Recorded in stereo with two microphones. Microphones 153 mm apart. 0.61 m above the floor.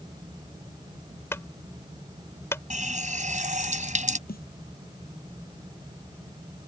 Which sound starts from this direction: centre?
A clunk, at 1.3 s.